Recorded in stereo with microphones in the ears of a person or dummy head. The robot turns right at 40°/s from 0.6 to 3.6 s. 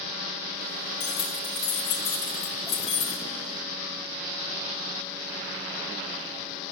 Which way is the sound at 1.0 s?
45° left (ahead or behind).